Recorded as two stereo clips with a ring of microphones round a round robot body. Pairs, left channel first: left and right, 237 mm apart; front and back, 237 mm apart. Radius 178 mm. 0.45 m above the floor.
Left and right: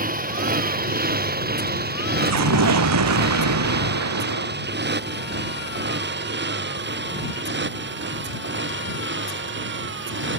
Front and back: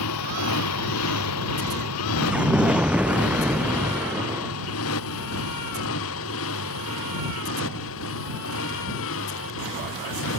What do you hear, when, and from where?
0.0 s a motorcycle: 35° right; by 10.4 s 50° right
2.2 s an explosion: 95° right